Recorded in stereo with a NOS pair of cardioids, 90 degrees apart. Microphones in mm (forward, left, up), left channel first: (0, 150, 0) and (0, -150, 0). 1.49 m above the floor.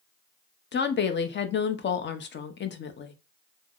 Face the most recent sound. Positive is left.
turn(degrees=35)